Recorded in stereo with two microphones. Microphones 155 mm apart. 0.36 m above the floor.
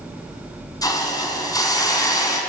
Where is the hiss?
20° left (ahead or behind), 4 m.